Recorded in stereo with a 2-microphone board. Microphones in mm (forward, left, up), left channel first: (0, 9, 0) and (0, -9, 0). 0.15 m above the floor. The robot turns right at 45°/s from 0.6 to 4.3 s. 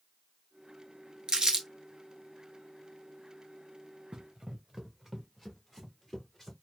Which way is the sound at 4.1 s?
55° right (ahead or behind).